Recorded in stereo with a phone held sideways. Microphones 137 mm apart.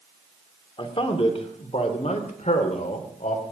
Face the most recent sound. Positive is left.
turn(degrees=70)  # may be behind; listen again after turning